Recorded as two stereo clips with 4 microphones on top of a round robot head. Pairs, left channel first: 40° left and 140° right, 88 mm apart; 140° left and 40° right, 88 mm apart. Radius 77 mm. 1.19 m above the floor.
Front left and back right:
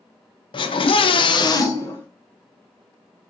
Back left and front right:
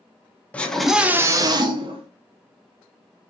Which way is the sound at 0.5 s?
65° left.